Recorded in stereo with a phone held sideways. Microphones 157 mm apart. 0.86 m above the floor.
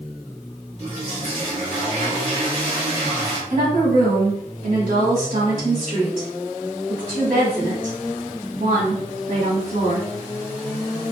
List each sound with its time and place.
0.8 s a toilet flushing: 50° right (ahead or behind), 1.4 m
3.5 s a woman speaking: 60° right (ahead or behind), 1.5 m